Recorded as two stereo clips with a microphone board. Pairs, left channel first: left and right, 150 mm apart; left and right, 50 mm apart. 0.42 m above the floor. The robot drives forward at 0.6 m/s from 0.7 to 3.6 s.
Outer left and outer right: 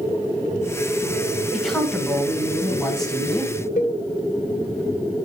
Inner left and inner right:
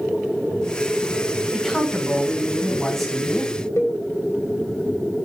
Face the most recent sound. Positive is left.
turn(degrees=65)  # may be behind; listen again after turning